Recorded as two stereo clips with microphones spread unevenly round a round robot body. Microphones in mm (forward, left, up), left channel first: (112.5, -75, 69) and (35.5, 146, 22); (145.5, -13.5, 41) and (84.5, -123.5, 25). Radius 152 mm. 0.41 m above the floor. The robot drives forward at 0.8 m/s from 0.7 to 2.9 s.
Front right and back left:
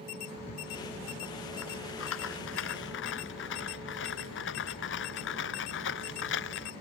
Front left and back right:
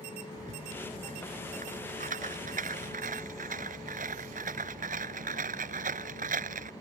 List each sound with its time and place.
0.4 s a rattle: 105° right; by 6.7 s 120° right